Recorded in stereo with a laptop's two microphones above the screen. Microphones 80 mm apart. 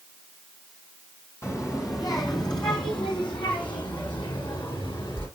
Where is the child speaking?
35° left (ahead or behind), 2.5 m; by 5.3 s 90° left, 6.5 m.